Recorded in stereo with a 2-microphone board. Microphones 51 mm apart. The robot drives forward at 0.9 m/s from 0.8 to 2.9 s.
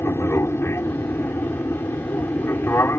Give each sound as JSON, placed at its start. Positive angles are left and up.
{"t": 0.0, "sound": "an aircraft", "side_deg": 60}